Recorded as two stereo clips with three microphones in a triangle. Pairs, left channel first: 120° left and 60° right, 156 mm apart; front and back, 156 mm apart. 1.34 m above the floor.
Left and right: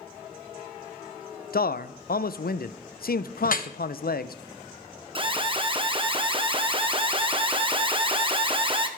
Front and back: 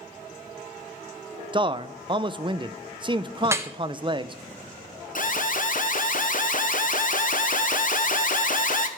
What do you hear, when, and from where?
1.5 s a man speaking: 120° left, 0.5 m
3.4 s dripping: 105° left, 0.8 m
5.2 s an alarm: 10° right, 0.9 m